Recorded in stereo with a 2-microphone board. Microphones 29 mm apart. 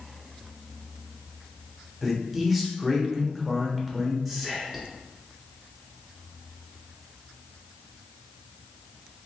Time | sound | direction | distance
2.0 | a man speaking | 5° right (ahead or behind) | 1.0 m
4.2 | whispering | 10° right (ahead or behind) | 1.2 m